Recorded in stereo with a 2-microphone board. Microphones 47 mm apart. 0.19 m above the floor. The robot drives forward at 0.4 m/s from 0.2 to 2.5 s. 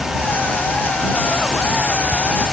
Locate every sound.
Only background noise.